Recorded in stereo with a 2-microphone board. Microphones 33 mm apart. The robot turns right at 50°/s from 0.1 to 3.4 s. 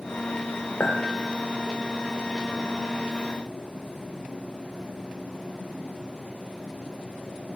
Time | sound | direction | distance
0.8 | a clink | 60° left (ahead or behind) | 0.6 m